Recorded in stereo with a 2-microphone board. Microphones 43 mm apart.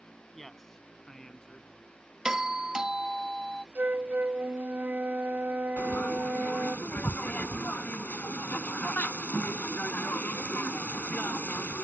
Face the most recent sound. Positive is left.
turn(degrees=40)  # may be behind; listen again after turning